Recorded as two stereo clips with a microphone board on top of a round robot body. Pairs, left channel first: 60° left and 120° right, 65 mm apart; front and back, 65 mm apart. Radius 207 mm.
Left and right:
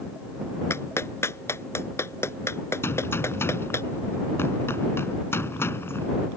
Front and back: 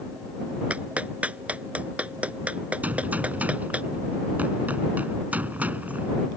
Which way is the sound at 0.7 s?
110° left.